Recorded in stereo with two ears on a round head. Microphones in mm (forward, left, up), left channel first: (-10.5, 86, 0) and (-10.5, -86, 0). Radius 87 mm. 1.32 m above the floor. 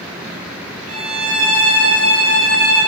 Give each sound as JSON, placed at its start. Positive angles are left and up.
{"t": 0.9, "sound": "a violin", "side_deg": -75, "distance_m": 3.5}